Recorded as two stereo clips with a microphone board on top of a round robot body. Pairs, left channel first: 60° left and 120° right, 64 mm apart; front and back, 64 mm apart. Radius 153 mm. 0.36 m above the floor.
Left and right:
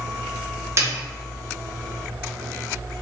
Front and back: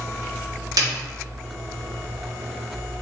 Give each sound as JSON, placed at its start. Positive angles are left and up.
{"t": 0.8, "sound": "a snare drum", "azimuth_deg": -165, "distance_m": 1.2}